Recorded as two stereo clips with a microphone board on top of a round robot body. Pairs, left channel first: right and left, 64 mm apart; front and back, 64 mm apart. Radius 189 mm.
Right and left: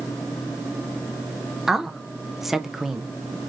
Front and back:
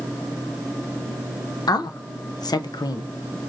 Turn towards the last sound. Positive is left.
turn(degrees=5)